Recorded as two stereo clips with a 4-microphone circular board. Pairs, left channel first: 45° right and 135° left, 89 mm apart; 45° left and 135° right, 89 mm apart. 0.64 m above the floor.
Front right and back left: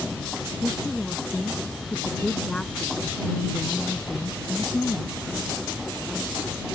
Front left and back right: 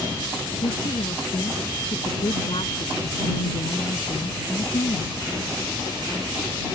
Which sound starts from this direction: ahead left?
A woman speaking, at 0.6 s.